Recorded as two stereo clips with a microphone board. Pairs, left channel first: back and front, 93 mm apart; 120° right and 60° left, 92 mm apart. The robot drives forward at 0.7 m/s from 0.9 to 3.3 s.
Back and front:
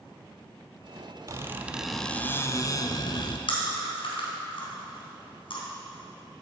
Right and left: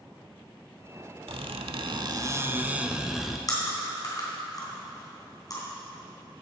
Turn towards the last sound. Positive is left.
turn(degrees=-165)